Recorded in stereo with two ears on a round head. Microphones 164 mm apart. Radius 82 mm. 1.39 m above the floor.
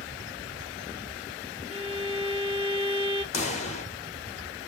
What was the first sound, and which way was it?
A violin, 35° left (ahead or behind).